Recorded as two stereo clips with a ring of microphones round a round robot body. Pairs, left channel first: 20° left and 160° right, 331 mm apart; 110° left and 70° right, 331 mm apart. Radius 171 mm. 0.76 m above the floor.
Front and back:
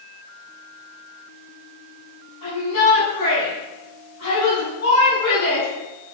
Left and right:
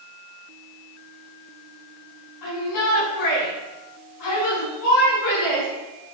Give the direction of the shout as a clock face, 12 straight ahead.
10 o'clock.